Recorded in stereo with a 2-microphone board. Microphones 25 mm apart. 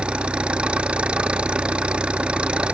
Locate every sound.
0.0 s an engine running: 45° right (ahead or behind)